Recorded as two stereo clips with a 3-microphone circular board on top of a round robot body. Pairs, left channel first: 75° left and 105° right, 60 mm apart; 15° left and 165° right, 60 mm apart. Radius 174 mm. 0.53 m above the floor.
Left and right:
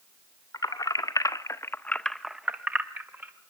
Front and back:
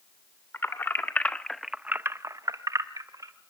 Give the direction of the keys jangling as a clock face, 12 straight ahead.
10 o'clock.